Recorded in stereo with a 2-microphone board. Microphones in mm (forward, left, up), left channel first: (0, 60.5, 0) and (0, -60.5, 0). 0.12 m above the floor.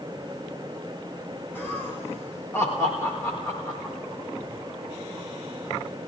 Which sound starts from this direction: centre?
Laughter, at 1.6 s.